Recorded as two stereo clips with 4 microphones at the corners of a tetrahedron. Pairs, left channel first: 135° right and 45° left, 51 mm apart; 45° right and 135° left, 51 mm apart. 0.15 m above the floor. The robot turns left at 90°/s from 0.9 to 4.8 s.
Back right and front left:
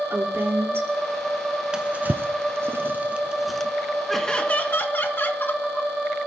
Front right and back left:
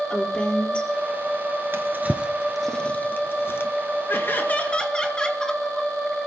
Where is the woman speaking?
20° left, 3.5 m.